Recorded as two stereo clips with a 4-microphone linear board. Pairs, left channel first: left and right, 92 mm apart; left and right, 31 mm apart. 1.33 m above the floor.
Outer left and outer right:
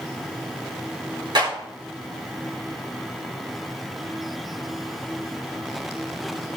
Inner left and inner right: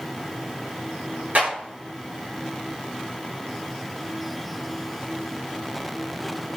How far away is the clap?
About 3.5 m.